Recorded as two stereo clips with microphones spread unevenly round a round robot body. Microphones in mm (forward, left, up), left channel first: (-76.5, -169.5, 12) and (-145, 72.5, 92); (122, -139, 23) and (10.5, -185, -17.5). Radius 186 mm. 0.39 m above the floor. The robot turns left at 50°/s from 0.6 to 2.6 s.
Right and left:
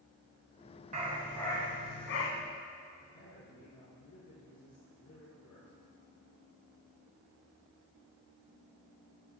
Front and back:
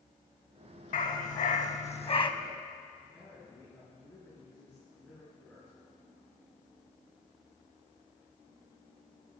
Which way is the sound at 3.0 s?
55° right.